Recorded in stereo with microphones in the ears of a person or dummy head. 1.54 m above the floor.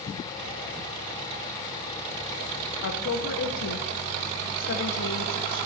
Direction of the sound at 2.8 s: 75° left (ahead or behind).